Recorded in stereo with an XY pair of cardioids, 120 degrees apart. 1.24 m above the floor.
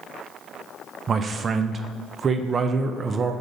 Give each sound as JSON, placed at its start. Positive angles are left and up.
{"t": 1.1, "sound": "a man speaking", "azimuth_deg": -35, "distance_m": 0.6}